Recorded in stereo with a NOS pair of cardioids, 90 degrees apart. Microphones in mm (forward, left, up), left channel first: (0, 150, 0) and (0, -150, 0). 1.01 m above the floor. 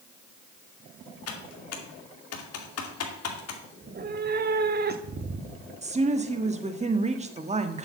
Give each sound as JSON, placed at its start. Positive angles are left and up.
{"t": 1.3, "sound": "typing on a keyboard", "azimuth_deg": 55, "distance_m": 2.5}
{"t": 3.8, "sound": "a cat meowing", "azimuth_deg": -35, "distance_m": 1.1}
{"t": 5.8, "sound": "a woman speaking", "azimuth_deg": -25, "distance_m": 1.6}